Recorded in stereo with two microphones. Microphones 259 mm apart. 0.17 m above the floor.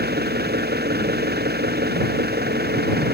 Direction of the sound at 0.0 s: 40° right (ahead or behind).